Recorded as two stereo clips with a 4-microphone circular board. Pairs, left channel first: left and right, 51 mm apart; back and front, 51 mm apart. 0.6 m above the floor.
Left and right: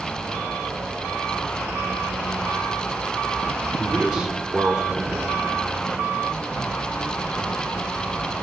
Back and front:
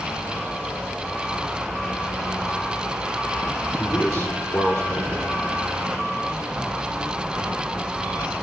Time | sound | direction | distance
3.8 | a man speaking | 165° right | 1.9 m